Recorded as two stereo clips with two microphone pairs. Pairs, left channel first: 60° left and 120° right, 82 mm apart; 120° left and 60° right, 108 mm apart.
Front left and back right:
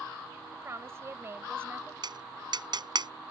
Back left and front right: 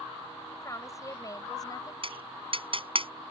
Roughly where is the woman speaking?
Behind.